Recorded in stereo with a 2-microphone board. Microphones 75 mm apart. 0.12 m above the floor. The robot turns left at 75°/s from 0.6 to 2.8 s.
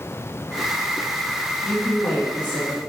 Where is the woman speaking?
5° left (ahead or behind), 1.3 m; by 2.8 s 25° left (ahead or behind), 1.3 m.